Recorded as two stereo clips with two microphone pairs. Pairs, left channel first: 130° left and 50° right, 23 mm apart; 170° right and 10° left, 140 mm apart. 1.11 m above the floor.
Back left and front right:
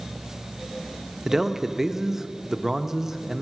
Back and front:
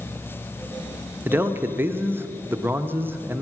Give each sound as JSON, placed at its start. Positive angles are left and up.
{"t": 1.2, "sound": "a man speaking", "azimuth_deg": -35, "distance_m": 0.6}